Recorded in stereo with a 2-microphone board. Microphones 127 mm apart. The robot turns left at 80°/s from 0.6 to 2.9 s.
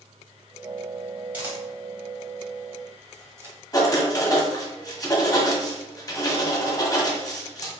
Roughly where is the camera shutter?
Centre.